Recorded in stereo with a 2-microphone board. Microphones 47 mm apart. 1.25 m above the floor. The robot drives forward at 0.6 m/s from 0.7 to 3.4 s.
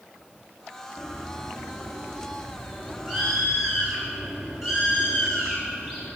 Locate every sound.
1.0 s a bird: 10° right (ahead or behind), 1.0 m; by 6.1 s 5° right (ahead or behind), 2.5 m